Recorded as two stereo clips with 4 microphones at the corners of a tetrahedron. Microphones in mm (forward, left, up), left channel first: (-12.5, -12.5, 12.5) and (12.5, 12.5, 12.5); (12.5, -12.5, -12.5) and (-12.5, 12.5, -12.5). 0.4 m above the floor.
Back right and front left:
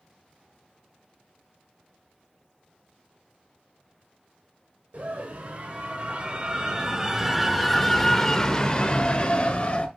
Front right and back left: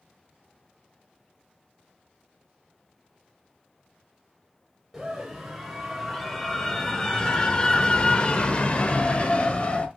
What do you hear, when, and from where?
4.9 s a scream: 50° left, 1.5 m; by 9.9 s 95° right, 1.7 m